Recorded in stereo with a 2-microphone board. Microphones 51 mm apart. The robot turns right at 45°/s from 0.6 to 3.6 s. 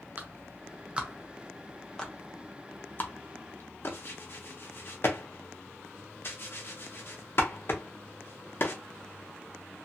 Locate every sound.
0.2 s a clap: 35° right (ahead or behind), 0.6 m; by 8.8 s 50° left (ahead or behind), 0.6 m